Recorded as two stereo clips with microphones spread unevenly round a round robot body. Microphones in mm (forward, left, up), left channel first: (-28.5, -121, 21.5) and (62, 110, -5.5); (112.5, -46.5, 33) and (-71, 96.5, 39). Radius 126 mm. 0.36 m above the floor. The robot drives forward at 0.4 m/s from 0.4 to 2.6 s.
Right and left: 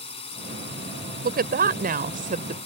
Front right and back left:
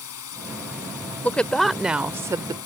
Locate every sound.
0.0 s a drone: 45° right
1.2 s a woman speaking: 40° left; by 2.6 s 80° left